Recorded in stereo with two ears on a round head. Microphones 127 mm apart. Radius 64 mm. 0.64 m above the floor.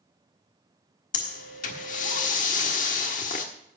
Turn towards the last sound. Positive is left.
turn(degrees=60)  # may be behind; listen again after turning